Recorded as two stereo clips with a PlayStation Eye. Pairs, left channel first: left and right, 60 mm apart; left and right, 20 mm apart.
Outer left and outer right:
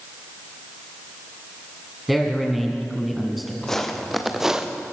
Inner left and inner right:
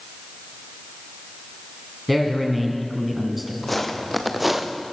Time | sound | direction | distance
2.1 | a man speaking | centre (ahead or behind) | 2.5 m
3.6 | footsteps | 10° left (ahead or behind) | 3 m